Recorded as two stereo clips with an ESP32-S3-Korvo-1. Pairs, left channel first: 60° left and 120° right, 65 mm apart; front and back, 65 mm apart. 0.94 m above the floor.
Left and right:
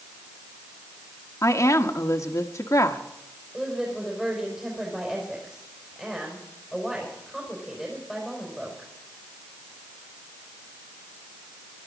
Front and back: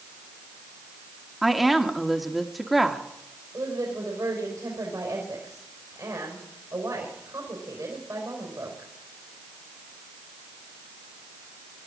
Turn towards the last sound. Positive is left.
turn(degrees=155)